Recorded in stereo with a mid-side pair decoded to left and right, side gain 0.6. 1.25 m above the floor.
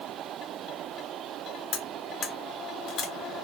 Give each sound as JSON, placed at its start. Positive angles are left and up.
{"t": 1.7, "sound": "cutlery clinking", "azimuth_deg": 50, "distance_m": 1.3}